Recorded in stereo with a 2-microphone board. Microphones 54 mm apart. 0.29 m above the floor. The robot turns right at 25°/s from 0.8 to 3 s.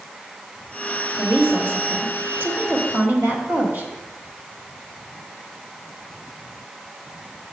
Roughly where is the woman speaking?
Behind right.